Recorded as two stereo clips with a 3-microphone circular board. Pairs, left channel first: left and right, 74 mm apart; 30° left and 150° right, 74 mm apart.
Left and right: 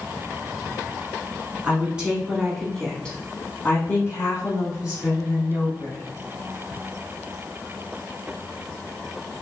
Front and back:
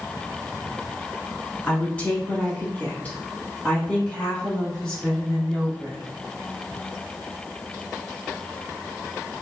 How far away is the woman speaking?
About 1.3 m.